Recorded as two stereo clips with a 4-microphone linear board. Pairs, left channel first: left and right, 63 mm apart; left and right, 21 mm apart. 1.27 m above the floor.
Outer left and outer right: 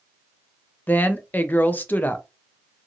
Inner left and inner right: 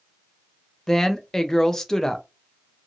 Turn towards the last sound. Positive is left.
turn(degrees=25)  # may be behind; listen again after turning